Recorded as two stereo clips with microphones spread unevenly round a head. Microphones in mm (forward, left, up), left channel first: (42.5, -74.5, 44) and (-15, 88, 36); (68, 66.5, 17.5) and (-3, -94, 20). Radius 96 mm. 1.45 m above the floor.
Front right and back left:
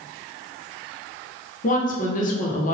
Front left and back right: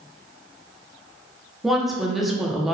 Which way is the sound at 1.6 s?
25° right.